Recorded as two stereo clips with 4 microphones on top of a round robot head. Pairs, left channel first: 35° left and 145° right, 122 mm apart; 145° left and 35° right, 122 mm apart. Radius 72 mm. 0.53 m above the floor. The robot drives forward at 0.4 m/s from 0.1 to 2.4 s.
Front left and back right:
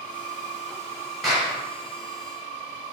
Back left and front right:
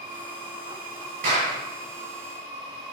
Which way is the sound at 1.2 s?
55° right.